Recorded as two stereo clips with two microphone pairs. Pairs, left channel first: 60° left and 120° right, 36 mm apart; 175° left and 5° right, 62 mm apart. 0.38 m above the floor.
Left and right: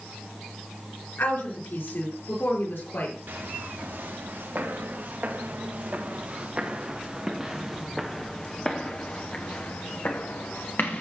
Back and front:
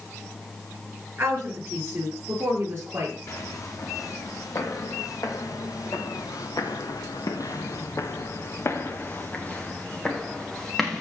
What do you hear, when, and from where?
1.2 s a woman speaking: 50° left, 5.5 m
3.3 s footsteps: 150° right, 4 m; by 11.0 s 85° left, 3 m